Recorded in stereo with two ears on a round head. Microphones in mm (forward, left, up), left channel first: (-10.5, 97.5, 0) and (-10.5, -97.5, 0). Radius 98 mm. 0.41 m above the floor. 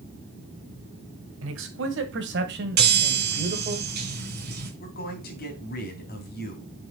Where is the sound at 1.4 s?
65° right (ahead or behind), 2.5 m; by 3.8 s 30° right (ahead or behind), 1.7 m.